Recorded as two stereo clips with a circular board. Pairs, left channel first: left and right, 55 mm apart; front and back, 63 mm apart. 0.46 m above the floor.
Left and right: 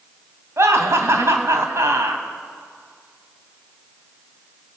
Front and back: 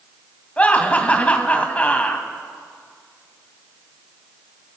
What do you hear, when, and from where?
0.6 s laughter: 65° right, 2.5 m